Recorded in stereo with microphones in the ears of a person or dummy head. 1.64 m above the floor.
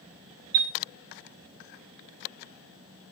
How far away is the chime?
About 0.6 m.